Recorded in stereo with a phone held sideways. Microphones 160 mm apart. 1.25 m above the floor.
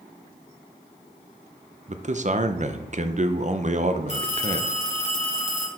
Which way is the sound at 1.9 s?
50° right (ahead or behind).